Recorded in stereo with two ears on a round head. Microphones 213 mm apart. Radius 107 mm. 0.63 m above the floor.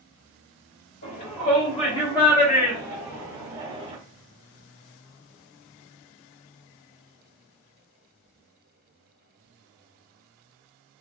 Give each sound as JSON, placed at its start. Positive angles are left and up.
{"t": 1.0, "sound": "a shout", "side_deg": 40, "distance_m": 1.5}